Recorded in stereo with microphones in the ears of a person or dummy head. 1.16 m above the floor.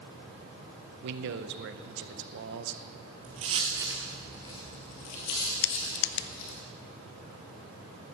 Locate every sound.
1.0 s a man speaking: 60° right (ahead or behind), 0.7 m
3.2 s footsteps: 35° right (ahead or behind), 1.8 m; by 6.6 s 70° left (ahead or behind), 3 m
5.6 s crushing: 55° left (ahead or behind), 0.7 m